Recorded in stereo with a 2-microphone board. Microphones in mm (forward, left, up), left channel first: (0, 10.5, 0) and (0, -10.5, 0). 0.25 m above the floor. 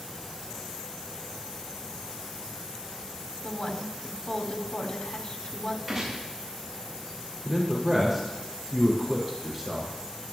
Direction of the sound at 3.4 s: 50° left (ahead or behind).